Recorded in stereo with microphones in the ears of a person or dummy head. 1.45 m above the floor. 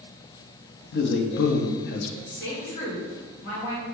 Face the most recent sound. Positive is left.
turn(degrees=65)  # may be behind; listen again after turning